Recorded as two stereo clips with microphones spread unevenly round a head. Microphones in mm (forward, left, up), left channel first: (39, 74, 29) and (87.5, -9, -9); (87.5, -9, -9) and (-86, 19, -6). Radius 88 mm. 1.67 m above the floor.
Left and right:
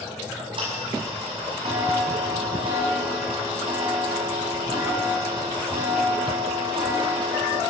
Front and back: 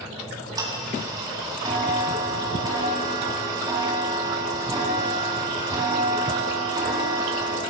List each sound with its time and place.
0.2 s ticking: 120° right, 4.5 m